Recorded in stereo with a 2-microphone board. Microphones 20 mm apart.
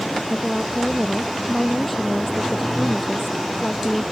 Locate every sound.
0.3 s a woman speaking: centre (ahead or behind)